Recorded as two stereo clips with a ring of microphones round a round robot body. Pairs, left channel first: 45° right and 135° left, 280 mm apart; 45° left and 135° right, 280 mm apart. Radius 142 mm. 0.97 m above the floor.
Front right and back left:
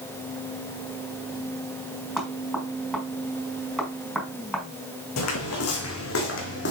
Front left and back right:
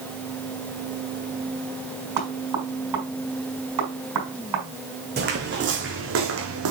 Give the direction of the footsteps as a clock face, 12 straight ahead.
3 o'clock.